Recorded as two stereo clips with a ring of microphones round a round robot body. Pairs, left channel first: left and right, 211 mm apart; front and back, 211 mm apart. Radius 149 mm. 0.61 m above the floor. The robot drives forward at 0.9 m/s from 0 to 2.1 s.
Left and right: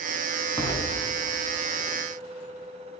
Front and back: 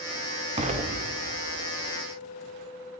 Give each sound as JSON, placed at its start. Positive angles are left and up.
{"t": 0.6, "sound": "an explosion", "azimuth_deg": 150, "distance_m": 1.4}